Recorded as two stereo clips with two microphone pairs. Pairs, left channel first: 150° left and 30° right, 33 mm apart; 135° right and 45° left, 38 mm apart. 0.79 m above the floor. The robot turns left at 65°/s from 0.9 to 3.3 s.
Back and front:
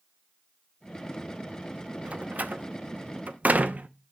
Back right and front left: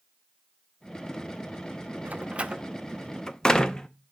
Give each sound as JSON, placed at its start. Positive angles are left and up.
{"t": 2.0, "sound": "a door slam", "azimuth_deg": 20, "distance_m": 0.6}